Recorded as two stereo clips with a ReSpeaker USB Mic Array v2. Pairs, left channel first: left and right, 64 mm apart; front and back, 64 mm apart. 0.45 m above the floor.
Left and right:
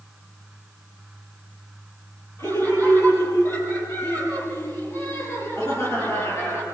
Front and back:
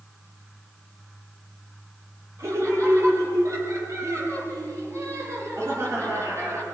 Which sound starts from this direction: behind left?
Laughter, at 2.4 s.